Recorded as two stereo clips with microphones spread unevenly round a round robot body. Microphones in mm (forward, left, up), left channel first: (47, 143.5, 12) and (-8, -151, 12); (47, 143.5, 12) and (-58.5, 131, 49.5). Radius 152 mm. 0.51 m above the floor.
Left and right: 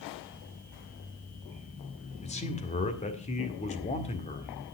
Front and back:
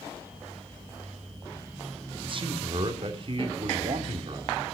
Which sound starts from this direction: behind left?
A man speaking, at 2.2 s.